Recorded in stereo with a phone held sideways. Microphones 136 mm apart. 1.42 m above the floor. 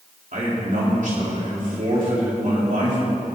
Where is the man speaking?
75° right (ahead or behind), 4 m.